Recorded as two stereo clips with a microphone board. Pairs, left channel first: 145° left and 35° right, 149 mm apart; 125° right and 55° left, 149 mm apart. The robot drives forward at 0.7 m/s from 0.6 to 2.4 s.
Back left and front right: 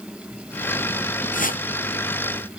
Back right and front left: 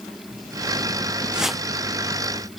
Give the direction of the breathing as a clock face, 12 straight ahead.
No breathing in this recording.